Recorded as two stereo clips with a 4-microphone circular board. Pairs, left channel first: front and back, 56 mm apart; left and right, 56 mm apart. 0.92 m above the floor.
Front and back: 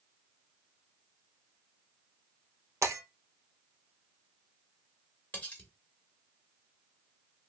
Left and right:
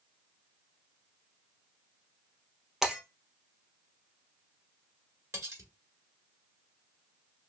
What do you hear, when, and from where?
2.8 s breaking glass: 170° right, 1.8 m
5.3 s cutlery clinking: 65° right, 1.8 m